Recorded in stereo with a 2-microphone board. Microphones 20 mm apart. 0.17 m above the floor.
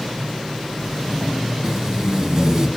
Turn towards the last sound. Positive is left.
turn(degrees=-30)  # may be behind; listen again after turning